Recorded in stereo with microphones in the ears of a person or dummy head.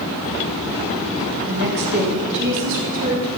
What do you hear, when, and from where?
1.5 s a woman speaking: 55° right (ahead or behind), 2.5 m; by 3.3 s 70° right (ahead or behind), 4 m